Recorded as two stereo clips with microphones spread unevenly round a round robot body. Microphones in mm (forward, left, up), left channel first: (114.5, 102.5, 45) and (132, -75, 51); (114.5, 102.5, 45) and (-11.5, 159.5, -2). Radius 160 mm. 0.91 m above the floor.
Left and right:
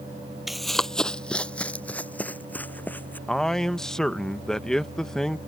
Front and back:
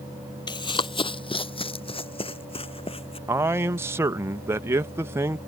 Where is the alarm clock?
No alarm clock in this recording.